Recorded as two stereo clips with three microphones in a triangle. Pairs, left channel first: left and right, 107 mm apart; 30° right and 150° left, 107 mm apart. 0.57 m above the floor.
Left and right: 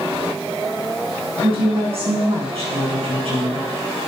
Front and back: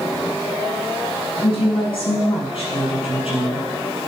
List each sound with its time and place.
1.4 s a woman speaking: 60° right, 5 m